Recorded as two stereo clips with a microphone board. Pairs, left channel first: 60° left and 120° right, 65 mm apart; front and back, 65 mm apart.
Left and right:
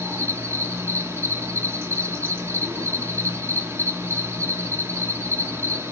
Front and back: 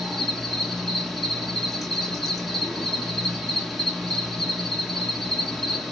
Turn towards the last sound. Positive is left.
turn(degrees=-90)